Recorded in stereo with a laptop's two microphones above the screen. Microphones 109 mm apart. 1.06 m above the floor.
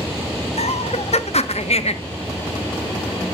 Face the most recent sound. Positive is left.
turn(degrees=75)  # may be behind; listen again after turning